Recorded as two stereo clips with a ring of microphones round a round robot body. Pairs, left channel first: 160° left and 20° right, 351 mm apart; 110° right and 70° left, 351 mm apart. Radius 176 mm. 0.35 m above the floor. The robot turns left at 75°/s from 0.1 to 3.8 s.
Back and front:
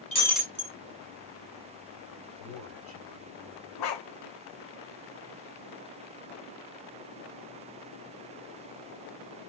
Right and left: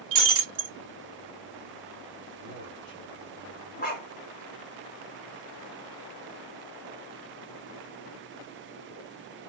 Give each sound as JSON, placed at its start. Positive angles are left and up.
{"t": 0.1, "sound": "breaking glass", "azimuth_deg": 85, "distance_m": 1.3}
{"t": 2.4, "sound": "a man speaking", "azimuth_deg": -35, "distance_m": 3.5}
{"t": 3.8, "sound": "a dog barking", "azimuth_deg": -175, "distance_m": 1.5}